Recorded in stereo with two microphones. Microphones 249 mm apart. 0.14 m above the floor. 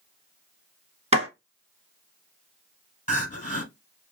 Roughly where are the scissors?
I don't hear scissors.